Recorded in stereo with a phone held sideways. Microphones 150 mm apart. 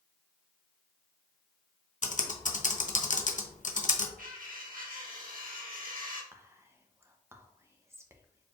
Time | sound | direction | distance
2.0 | typing on a keyboard | 55° left (ahead or behind) | 0.6 m
4.2 | cutlery clinking | 65° right (ahead or behind) | 1.1 m
6.3 | whispering | 20° right (ahead or behind) | 0.7 m